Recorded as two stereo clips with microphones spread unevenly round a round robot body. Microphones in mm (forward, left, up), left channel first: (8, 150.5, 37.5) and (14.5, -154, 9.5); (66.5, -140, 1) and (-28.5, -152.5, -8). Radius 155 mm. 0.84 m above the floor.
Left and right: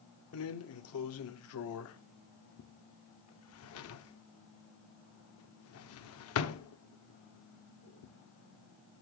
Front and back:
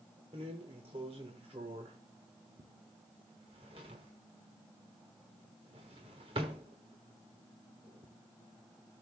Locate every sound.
0.3 s a drawer: 135° left, 0.8 m